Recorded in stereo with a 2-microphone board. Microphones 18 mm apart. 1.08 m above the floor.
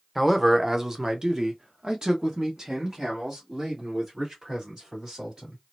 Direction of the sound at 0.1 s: 5° right (ahead or behind).